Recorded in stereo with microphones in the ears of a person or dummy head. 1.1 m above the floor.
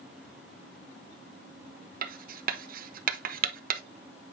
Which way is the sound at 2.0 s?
45° right (ahead or behind).